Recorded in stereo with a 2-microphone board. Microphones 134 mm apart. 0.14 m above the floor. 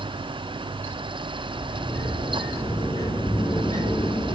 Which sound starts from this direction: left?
A sliding door, at 1.5 s.